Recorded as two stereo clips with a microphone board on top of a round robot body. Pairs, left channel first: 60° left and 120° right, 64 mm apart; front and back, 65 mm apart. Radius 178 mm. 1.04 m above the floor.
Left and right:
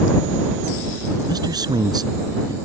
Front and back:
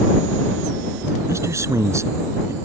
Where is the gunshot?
I don't hear a gunshot.